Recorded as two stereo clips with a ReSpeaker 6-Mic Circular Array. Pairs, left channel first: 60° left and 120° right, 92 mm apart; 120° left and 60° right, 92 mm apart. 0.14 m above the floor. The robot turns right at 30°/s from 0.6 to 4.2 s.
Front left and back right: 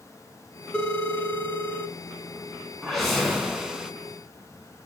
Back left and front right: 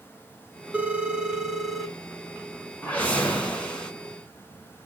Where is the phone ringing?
5° right, 0.6 m; by 1.9 s 30° left, 0.6 m.